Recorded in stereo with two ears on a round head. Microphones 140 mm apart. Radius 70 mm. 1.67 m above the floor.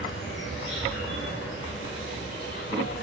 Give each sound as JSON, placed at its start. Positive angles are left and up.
{"t": 0.0, "sound": "an insect", "side_deg": 80, "distance_m": 10.0}